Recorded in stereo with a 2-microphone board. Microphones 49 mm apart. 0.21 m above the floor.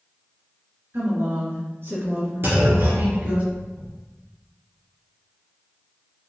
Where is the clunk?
50° right (ahead or behind), 2 m.